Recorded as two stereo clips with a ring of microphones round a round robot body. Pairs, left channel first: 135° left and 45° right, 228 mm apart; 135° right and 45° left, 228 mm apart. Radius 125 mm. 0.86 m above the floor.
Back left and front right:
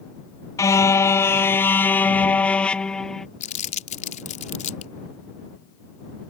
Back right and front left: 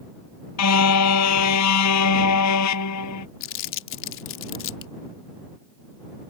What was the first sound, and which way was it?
A car horn, 145° right.